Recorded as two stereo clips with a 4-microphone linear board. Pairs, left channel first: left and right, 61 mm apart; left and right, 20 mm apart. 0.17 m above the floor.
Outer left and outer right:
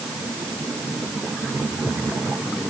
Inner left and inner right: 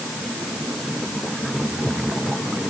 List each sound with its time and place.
Only background noise.